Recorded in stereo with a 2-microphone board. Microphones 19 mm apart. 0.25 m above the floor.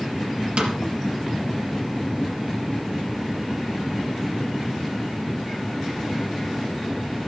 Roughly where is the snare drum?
Right.